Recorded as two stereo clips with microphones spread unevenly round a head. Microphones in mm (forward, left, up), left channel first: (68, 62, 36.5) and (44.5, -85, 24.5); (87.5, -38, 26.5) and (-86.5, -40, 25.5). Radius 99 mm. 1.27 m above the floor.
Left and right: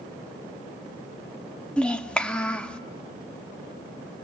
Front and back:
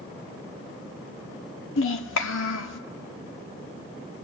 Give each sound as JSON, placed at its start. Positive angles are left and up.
{"t": 1.8, "sound": "a child speaking", "azimuth_deg": 0, "distance_m": 1.6}